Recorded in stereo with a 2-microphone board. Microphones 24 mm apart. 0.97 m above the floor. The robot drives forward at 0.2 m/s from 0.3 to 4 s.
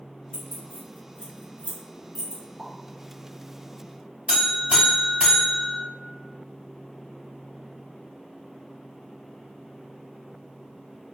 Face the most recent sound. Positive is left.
turn(degrees=-60)  # may be behind; listen again after turning